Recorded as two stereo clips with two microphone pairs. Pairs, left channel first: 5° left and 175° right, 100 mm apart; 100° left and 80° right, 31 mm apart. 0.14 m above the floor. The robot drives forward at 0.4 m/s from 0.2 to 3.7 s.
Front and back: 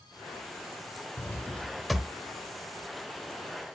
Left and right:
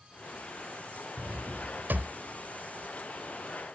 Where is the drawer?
55° right, 0.6 m; by 2.1 s 95° right, 0.5 m.